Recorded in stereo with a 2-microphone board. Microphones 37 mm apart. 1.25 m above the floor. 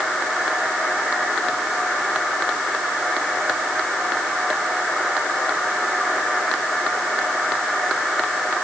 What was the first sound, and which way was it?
Only background noise.